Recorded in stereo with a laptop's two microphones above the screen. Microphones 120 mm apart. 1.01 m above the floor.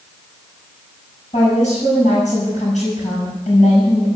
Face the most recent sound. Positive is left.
turn(degrees=80)